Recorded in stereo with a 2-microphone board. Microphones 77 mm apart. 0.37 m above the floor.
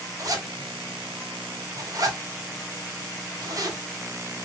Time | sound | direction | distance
0.2 | a zipper | 50° right (ahead or behind) | 2 m